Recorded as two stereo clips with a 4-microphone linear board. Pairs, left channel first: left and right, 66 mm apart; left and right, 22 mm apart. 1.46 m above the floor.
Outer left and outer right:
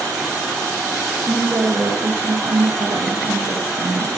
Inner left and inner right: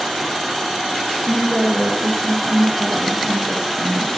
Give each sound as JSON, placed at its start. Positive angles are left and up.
{"t": 1.3, "sound": "a woman speaking", "side_deg": -30, "distance_m": 2.5}